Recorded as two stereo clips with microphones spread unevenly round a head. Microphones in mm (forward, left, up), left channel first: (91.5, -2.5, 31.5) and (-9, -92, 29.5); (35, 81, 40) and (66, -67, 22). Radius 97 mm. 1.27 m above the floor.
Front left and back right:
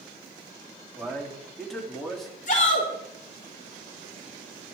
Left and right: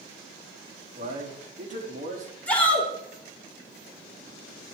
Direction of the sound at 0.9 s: 45° right.